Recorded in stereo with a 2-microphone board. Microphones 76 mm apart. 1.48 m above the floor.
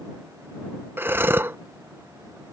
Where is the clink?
I don't hear a clink.